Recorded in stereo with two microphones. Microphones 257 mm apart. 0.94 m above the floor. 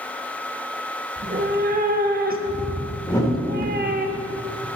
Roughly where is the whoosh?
Centre.